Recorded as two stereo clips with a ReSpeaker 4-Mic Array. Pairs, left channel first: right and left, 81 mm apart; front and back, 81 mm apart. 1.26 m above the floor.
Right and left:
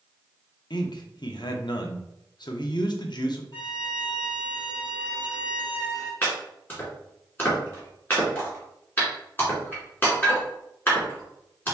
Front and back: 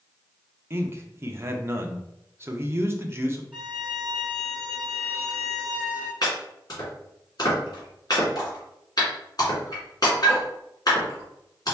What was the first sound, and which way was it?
A man speaking, 120° right.